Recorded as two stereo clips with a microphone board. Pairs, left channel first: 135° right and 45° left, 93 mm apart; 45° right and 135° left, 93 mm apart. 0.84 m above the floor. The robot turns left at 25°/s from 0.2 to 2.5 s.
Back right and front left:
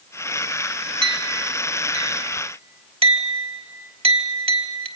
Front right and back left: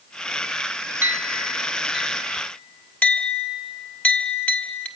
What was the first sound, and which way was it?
A clink, 70° left.